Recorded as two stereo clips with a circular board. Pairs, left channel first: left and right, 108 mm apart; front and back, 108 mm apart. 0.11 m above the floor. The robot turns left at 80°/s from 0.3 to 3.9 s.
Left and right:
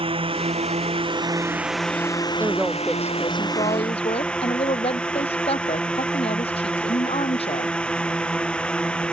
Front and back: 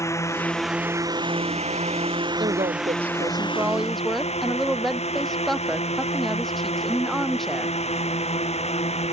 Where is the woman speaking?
150° right; by 7.8 s 90° left.